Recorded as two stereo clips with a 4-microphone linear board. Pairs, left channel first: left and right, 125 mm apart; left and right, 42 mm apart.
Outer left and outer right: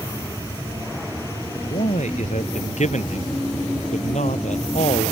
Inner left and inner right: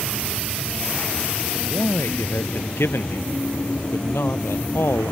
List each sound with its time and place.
1.6 s a man speaking: 75° left (ahead or behind); by 5.1 s 80° left